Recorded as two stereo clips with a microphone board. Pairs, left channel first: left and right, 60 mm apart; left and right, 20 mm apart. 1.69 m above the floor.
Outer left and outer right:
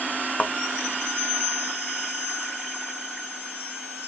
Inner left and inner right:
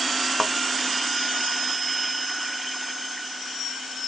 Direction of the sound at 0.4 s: 20° left (ahead or behind).